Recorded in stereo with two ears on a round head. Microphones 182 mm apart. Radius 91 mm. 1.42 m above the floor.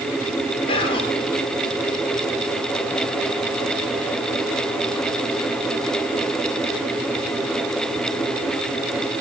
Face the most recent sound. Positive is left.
turn(degrees=30)  # may be behind; listen again after turning